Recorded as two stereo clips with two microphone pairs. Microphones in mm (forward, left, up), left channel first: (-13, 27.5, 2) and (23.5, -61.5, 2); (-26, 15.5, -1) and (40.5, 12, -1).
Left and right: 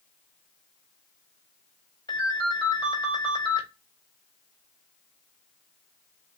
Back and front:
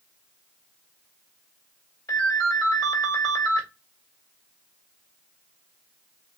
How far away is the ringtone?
About 1.5 m.